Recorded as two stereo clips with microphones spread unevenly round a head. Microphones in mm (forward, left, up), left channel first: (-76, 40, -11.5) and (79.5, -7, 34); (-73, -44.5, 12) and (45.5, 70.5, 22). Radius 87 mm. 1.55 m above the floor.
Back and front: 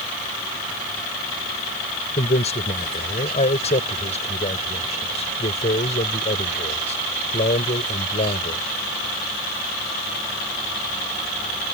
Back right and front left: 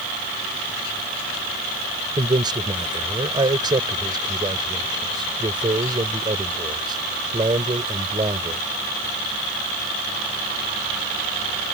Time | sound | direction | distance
2.2 | a man speaking | 110° left | ?